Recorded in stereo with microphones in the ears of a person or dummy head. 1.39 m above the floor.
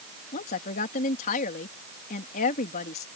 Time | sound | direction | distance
0.3 | a woman speaking | 45° left (ahead or behind) | ?